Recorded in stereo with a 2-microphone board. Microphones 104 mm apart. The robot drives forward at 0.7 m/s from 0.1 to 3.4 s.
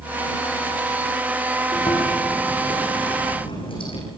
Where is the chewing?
60° left (ahead or behind), 8 m; by 4.0 s 55° left (ahead or behind), 9 m.